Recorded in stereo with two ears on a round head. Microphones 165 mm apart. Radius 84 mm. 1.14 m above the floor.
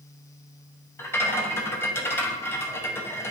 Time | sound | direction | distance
1.0 | a rattle | 15° left (ahead or behind) | 0.7 m